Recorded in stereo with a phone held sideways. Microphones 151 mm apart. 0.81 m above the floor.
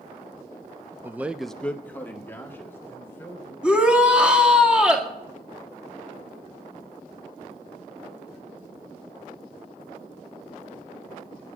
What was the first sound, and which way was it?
A man speaking, 15° right (ahead or behind).